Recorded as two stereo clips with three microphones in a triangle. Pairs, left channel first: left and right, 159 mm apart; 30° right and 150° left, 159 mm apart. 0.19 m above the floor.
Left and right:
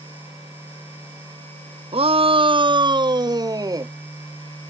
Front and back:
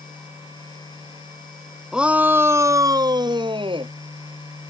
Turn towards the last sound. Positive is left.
turn(degrees=-155)